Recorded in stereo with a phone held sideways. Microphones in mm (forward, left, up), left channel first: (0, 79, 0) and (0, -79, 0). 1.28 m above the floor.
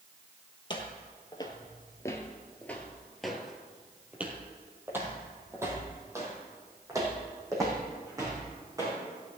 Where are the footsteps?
30° left (ahead or behind), 1.7 m; by 9.0 s 25° right (ahead or behind), 4.5 m.